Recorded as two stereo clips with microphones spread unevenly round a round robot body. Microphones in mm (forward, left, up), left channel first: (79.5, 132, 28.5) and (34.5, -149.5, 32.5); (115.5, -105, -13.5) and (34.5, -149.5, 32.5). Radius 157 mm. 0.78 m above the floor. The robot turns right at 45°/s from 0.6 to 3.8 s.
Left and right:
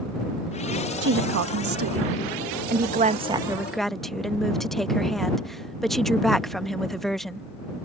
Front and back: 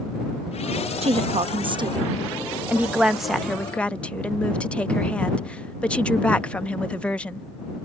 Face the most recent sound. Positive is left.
turn(degrees=-5)